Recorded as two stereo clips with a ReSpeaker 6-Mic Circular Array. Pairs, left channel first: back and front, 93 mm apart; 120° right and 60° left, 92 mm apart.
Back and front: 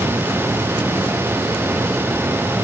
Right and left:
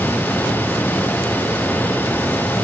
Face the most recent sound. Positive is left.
No sound to turn to.